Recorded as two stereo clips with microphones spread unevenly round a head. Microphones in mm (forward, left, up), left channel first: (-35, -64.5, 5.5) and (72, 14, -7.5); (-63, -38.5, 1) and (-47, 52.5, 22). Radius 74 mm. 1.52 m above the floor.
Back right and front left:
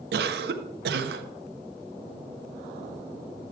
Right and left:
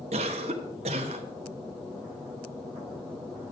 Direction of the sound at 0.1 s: 55° left.